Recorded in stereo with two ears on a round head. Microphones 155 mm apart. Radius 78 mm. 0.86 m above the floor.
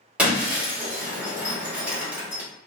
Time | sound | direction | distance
0.2 | breaking glass | 10° right (ahead or behind) | 1.5 m